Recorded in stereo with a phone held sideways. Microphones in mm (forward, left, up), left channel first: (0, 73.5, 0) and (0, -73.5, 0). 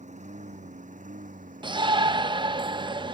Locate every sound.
0.0 s a lawn mower: 55° right (ahead or behind); by 3.1 s 70° right (ahead or behind)
1.6 s a shout: 30° right (ahead or behind)